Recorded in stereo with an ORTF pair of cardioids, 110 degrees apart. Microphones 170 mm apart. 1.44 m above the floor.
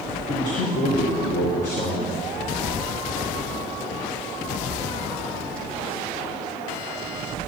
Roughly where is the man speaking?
Ahead left.